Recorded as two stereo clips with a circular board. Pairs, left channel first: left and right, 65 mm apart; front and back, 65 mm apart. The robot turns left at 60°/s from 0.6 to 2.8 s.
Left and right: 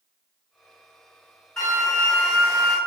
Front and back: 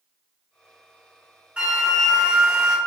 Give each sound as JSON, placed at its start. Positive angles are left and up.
{"t": 1.6, "sound": "a flute", "azimuth_deg": 155, "distance_m": 1.5}